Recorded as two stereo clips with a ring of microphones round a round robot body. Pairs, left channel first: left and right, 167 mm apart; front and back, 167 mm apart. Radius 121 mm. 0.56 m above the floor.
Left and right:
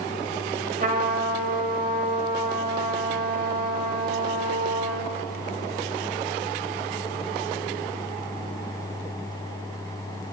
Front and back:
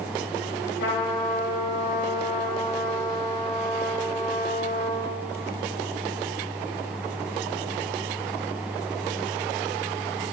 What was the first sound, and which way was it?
A trumpet, 50° right.